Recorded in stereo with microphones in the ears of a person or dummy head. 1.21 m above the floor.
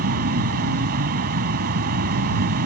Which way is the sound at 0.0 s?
50° right (ahead or behind).